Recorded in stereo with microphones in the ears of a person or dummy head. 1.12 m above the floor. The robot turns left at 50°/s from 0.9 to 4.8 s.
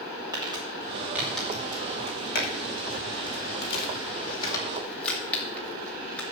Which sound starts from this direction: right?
Crumpling, at 0.3 s.